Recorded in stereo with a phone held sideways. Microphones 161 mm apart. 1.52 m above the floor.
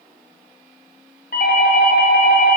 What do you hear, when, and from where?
1.3 s a doorbell: 70° left (ahead or behind), 1.2 m